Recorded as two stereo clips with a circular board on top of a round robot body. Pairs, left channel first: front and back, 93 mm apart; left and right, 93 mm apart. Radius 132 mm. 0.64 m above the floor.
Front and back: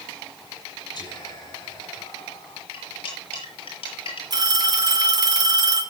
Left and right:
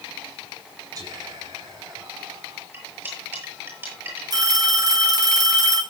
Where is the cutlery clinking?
20° right, 8.5 m.